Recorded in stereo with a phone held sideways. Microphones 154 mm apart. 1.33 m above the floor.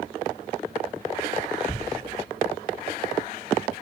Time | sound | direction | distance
1.7 | a thud | 15° left (ahead or behind) | 0.6 m